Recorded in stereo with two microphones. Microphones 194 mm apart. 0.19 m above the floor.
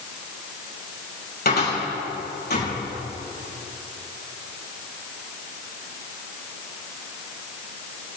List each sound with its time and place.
1.4 s a cupboard door: 55° left (ahead or behind), 6 m